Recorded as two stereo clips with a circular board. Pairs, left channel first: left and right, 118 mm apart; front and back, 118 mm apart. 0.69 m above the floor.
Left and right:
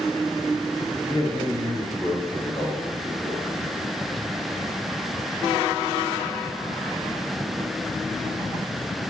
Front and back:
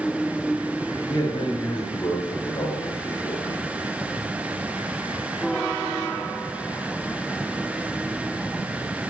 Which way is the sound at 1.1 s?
45° left.